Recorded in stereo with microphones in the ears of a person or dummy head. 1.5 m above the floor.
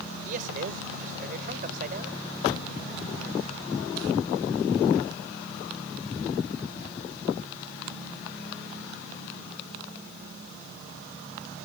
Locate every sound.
0.2 s a man speaking: 50° right (ahead or behind)